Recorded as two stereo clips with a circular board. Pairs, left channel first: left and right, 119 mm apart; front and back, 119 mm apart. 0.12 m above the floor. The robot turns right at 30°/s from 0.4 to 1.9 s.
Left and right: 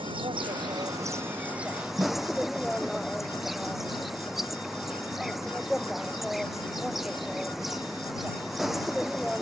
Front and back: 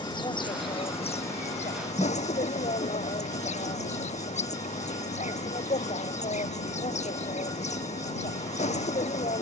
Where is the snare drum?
55° right.